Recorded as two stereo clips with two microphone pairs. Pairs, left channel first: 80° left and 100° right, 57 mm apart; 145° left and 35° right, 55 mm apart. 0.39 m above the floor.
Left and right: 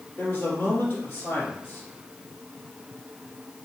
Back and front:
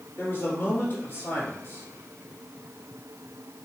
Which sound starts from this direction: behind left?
A man speaking, at 0.2 s.